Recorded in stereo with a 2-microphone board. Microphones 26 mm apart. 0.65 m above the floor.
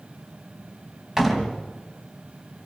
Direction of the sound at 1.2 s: 15° right (ahead or behind).